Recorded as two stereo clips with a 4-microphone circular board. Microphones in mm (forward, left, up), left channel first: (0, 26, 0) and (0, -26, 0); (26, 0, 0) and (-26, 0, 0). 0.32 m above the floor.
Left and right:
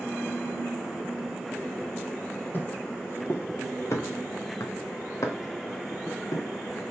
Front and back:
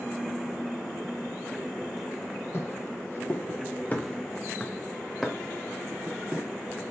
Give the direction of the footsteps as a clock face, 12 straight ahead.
11 o'clock.